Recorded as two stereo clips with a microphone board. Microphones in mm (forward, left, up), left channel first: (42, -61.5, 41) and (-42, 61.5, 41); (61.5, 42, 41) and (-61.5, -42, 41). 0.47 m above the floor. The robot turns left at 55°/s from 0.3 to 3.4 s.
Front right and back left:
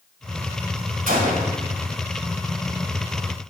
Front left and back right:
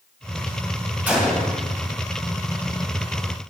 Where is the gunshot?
135° left, 2.5 m; by 1.6 s 105° left, 2.5 m.